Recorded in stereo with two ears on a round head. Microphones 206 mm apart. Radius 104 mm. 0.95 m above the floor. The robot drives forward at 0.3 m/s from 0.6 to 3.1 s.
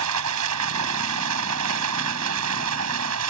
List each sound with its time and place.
0.0 s running water: 85° right